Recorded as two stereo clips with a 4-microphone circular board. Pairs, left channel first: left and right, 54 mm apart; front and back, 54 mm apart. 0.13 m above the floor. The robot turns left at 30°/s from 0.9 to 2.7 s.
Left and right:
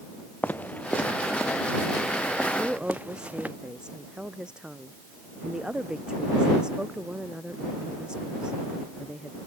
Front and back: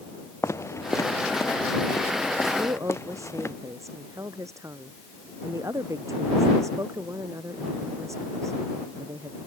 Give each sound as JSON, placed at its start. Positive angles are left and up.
{"t": 0.4, "sound": "footsteps", "azimuth_deg": 30}
{"t": 2.5, "sound": "a woman speaking", "azimuth_deg": -160}